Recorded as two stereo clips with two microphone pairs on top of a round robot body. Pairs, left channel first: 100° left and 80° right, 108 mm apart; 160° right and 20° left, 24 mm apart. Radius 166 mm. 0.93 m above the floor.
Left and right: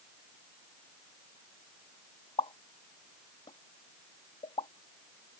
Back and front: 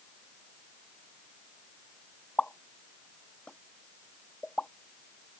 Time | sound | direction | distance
2.4 | a pop | 145° left | ?